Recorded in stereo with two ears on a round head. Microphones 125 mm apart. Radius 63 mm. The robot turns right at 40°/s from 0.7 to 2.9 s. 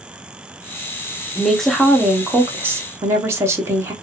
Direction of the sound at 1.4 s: 5° left (ahead or behind).